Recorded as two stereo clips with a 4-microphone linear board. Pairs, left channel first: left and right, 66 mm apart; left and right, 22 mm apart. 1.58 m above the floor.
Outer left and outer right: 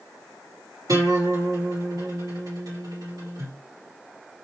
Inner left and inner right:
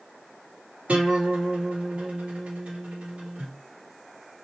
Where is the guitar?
75° right (ahead or behind), 2.5 m.